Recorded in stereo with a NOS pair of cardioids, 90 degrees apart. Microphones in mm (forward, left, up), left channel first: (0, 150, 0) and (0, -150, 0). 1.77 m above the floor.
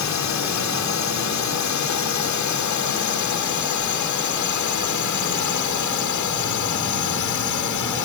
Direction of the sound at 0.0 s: 65° left.